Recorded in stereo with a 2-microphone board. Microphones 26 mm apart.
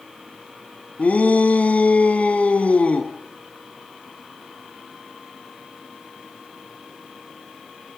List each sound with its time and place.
1.0 s a shout: 80° left, 3 m; by 3.1 s 65° left (ahead or behind), 3.5 m